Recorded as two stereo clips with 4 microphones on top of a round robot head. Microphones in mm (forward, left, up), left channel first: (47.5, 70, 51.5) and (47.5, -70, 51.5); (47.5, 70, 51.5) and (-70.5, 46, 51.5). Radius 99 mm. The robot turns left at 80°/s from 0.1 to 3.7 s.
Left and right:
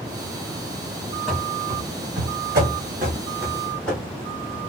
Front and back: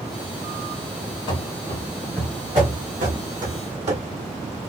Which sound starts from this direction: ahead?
Running footsteps, at 1.3 s.